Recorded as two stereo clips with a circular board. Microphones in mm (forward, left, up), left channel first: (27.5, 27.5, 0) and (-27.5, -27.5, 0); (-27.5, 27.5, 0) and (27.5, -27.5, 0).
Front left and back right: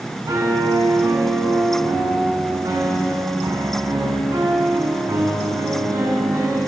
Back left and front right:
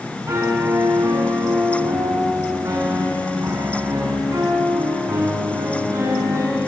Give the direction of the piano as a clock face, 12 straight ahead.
3 o'clock.